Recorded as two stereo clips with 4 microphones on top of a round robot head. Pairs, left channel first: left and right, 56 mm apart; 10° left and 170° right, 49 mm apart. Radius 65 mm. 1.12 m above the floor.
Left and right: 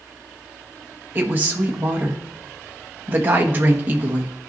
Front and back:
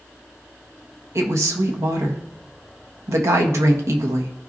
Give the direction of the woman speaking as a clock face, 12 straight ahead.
5 o'clock.